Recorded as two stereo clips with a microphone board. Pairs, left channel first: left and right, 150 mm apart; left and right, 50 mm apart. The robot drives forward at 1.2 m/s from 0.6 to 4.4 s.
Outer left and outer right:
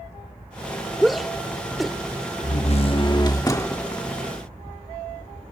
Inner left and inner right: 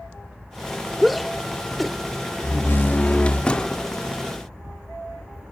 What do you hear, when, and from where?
1.0 s a shout: centre (ahead or behind)
2.4 s a door slam: 65° left (ahead or behind); by 3.9 s 20° left (ahead or behind)